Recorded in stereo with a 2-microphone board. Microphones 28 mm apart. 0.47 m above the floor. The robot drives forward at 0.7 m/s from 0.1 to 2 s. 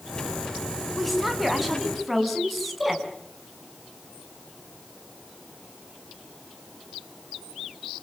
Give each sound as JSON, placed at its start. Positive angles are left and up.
{"t": 0.9, "sound": "a woman speaking", "side_deg": -5, "distance_m": 4.5}